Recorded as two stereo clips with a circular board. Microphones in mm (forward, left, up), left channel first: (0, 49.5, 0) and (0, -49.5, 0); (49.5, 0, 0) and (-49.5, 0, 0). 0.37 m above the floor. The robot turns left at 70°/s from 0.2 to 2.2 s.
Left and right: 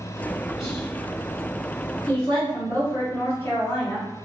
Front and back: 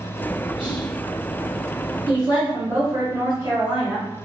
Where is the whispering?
150° left, 1.5 m; by 0.9 s 125° left, 1.5 m.